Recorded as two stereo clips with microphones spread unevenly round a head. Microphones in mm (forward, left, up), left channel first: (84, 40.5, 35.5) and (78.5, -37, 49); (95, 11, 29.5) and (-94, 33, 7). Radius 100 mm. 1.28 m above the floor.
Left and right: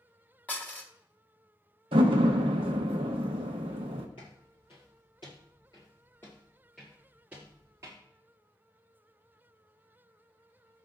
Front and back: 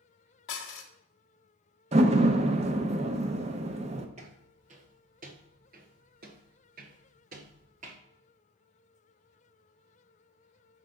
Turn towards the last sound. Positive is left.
turn(degrees=-135)